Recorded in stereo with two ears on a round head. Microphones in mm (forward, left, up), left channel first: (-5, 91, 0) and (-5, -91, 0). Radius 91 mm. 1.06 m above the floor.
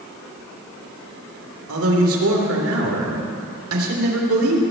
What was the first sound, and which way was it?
A man speaking, 75° right (ahead or behind).